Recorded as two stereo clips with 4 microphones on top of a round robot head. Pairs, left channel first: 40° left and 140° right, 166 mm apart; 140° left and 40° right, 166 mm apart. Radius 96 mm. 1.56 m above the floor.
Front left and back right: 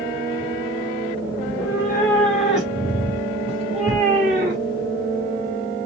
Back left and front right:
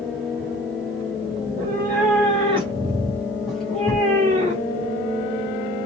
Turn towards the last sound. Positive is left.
turn(degrees=-165)